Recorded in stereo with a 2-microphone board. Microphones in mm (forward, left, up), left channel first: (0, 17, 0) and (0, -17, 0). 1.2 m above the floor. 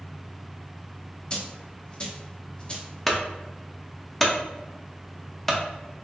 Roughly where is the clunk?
Centre.